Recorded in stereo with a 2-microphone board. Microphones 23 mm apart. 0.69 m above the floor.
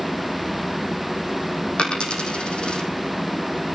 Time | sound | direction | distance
1.8 | a dropped coin | 40° left (ahead or behind) | 3.5 m